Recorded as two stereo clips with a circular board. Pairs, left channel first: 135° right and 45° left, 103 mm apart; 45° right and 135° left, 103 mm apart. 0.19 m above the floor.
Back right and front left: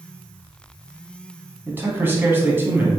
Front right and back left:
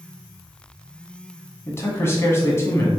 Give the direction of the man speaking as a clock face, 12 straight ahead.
12 o'clock.